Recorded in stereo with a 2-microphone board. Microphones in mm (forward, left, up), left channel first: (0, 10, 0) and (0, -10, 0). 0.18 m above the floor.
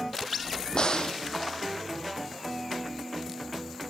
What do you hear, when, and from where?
0.7 s a crack: 45° left (ahead or behind), 1.3 m